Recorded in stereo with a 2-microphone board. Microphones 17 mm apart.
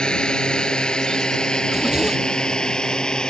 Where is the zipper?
35° right (ahead or behind).